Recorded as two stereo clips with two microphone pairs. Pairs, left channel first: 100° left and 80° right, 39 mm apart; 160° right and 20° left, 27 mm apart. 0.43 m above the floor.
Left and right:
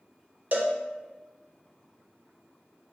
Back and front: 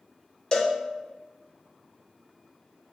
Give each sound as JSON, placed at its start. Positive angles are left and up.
{"t": 0.5, "sound": "a cowbell", "azimuth_deg": -100, "distance_m": 0.6}